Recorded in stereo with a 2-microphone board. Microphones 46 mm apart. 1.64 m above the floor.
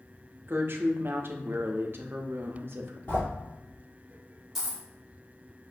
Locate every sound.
0.5 s a woman speaking: 50° right (ahead or behind), 0.5 m
3.1 s a sliding door: 40° left (ahead or behind), 1.7 m
4.5 s a dropped coin: 5° right (ahead or behind), 1.7 m